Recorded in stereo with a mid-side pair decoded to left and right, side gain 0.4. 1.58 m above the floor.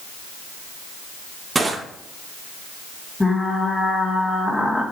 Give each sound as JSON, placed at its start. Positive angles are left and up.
{"t": 1.6, "sound": "crushing", "azimuth_deg": -30, "distance_m": 2.5}
{"t": 3.2, "sound": "frying", "azimuth_deg": 15, "distance_m": 3.5}